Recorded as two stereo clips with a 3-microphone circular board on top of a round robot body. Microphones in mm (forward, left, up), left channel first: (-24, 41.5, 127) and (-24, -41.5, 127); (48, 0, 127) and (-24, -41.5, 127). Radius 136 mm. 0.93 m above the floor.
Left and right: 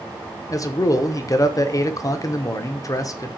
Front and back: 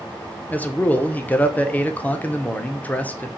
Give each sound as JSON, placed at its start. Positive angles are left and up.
{"t": 0.5, "sound": "a man speaking", "azimuth_deg": 90, "distance_m": 0.8}